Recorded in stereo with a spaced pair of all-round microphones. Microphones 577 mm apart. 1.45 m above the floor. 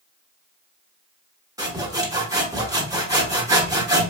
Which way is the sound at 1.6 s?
5° right (ahead or behind).